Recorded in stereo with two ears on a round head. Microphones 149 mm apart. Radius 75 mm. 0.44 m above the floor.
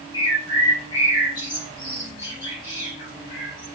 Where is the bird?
30° left (ahead or behind), 5 m.